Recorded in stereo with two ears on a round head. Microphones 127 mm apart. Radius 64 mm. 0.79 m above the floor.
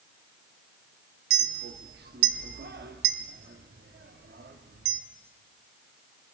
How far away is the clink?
About 1.0 m.